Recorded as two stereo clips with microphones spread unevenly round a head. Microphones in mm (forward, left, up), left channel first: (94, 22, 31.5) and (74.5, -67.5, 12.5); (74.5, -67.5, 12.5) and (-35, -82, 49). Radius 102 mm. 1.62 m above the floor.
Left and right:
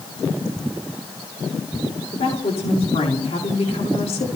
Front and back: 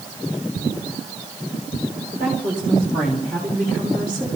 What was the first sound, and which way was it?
A woman speaking, 105° left.